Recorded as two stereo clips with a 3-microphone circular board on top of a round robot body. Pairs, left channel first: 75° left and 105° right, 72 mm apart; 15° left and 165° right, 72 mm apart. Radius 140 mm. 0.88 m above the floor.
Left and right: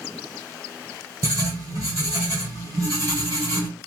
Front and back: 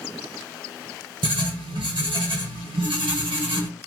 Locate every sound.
1.2 s writing: 155° right, 1.4 m